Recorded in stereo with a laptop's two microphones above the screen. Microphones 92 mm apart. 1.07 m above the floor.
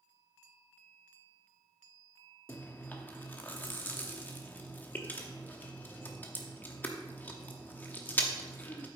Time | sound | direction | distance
2.5 | chewing | 20° left (ahead or behind) | 0.9 m